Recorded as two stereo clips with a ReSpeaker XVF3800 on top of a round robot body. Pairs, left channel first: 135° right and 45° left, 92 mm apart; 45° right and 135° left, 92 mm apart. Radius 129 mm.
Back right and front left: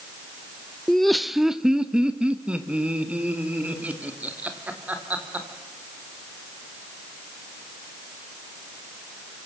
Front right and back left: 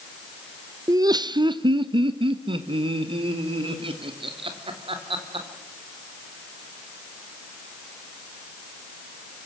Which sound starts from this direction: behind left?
Laughter, at 0.9 s.